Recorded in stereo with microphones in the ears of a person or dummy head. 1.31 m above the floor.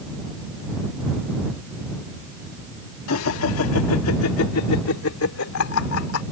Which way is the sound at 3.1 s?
75° left (ahead or behind).